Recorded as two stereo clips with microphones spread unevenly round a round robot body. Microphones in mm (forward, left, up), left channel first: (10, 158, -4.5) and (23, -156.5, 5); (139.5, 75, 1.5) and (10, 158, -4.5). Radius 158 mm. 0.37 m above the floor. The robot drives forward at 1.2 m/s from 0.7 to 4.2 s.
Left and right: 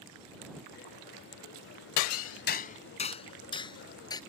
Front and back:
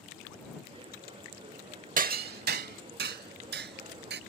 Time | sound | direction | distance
2.0 | hammering | 120° left | ?